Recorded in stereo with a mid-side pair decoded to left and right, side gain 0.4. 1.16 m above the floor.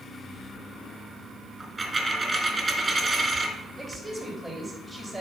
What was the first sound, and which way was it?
A dropped coin, 20° right.